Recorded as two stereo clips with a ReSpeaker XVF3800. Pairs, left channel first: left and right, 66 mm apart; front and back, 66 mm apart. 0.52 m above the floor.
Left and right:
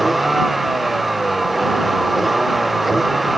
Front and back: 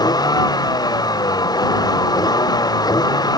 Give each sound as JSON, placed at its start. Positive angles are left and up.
{"t": 0.0, "sound": "a vehicle", "azimuth_deg": 0}